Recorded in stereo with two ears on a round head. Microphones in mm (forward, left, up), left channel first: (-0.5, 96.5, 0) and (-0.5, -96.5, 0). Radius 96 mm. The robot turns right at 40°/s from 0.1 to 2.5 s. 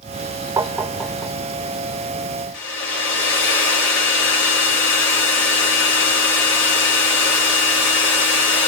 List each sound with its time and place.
0.6 s tapping: 15° right (ahead or behind), 0.6 m; by 1.3 s 10° left (ahead or behind), 0.6 m
2.5 s a hair dryer: 60° left (ahead or behind), 3 m